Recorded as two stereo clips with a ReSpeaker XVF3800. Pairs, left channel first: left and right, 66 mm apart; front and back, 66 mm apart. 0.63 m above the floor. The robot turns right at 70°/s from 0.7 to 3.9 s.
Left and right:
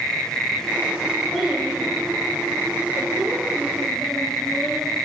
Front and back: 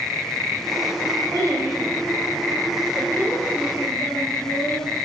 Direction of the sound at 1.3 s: 175° left.